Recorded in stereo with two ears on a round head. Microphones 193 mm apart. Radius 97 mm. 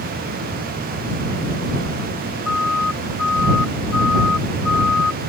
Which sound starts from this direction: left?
A siren, at 2.5 s.